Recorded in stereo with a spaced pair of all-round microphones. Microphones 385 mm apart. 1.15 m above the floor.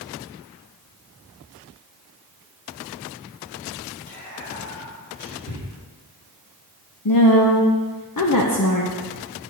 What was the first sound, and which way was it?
Whispering, 25° left (ahead or behind).